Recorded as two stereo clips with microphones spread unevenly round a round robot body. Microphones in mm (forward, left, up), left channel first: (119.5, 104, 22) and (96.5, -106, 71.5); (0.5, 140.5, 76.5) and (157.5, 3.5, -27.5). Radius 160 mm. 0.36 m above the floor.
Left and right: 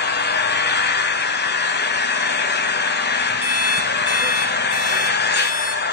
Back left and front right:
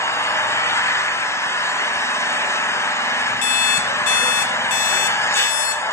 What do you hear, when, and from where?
0.0 s an engine running: 50° left, 1.5 m
3.4 s an alarm clock: 155° left, 0.9 m